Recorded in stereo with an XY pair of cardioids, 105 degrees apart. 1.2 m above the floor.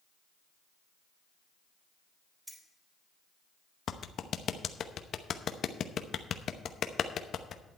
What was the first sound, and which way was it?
Keys jangling, 10° right.